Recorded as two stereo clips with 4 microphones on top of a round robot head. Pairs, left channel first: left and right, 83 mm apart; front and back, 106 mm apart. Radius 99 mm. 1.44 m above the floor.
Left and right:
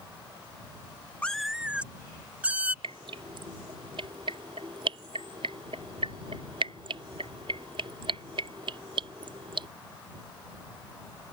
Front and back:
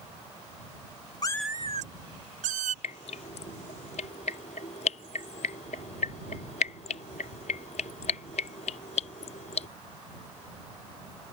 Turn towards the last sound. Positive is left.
turn(degrees=-40)